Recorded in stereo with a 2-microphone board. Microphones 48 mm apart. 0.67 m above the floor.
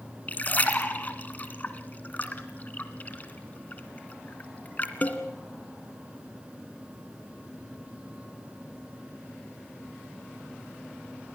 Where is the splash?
35° left (ahead or behind), 2.0 m.